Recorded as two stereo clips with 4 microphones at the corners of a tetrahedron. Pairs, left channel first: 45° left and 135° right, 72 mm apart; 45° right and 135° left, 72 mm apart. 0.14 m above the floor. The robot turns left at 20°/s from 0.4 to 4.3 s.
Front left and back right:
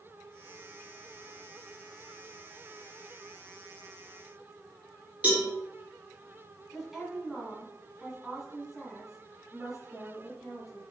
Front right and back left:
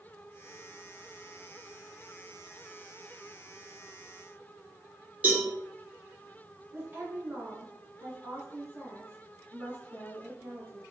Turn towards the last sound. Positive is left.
turn(degrees=145)